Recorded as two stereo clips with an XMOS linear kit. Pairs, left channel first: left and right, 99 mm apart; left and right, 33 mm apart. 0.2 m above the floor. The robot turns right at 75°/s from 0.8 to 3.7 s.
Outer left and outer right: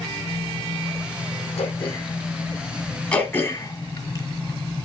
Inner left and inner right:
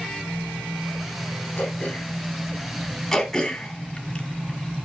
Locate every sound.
1.6 s throat clearing: 105° left, 3.5 m; by 2.2 s 150° left, 3.5 m
3.1 s throat clearing: 10° left (ahead or behind), 1.9 m; by 4.8 s 30° left (ahead or behind), 1.9 m